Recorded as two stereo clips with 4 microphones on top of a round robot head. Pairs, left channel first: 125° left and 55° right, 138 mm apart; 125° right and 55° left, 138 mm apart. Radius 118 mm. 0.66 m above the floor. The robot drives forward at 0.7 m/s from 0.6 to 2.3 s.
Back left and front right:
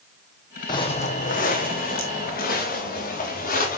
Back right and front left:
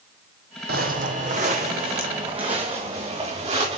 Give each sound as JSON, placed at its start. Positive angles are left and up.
{"t": 0.7, "sound": "footsteps", "azimuth_deg": 65, "distance_m": 1.1}